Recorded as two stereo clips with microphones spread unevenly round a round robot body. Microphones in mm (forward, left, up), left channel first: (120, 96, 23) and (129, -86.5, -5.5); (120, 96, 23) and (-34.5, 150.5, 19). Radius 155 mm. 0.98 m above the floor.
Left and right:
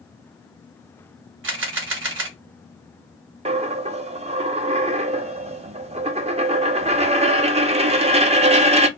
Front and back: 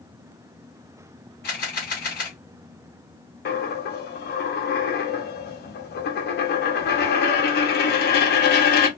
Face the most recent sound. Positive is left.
turn(degrees=-25)